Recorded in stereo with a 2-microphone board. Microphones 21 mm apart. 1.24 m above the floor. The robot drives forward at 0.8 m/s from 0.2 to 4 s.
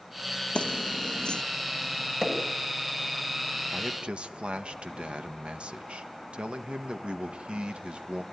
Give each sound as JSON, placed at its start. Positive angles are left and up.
{"t": 0.6, "sound": "keys jangling", "side_deg": 70, "distance_m": 0.8}
{"t": 2.2, "sound": "hammering", "side_deg": -30, "distance_m": 6.0}
{"t": 3.7, "sound": "a man speaking", "side_deg": -75, "distance_m": 1.5}